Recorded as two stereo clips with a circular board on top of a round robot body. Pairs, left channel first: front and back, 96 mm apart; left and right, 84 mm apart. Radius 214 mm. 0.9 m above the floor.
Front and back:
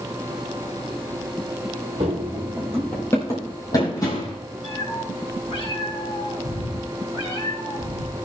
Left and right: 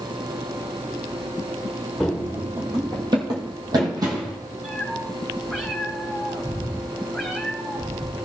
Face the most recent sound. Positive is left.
turn(degrees=-5)